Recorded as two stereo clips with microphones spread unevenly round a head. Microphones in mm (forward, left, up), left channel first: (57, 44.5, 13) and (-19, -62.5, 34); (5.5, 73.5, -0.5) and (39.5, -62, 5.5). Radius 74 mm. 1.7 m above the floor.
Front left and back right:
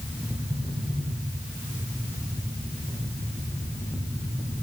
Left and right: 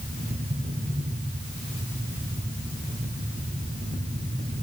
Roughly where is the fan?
Ahead right.